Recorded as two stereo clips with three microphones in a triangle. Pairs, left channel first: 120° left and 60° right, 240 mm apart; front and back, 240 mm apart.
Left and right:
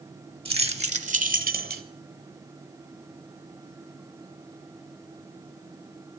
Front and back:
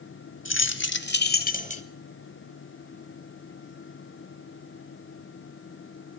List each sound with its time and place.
0.5 s keys jangling: straight ahead, 1.2 m; by 1.8 s 45° right, 0.9 m